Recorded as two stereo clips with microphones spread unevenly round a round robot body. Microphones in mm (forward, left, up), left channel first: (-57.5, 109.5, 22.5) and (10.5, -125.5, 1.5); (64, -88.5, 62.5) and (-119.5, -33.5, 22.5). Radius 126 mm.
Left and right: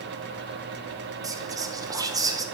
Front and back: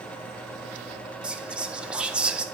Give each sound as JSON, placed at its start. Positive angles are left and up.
{"t": 1.2, "sound": "whispering", "azimuth_deg": -135, "distance_m": 1.1}